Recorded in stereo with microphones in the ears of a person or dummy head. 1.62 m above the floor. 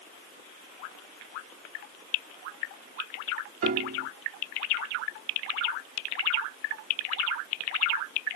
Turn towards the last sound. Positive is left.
turn(degrees=-50)  # may be behind; listen again after turning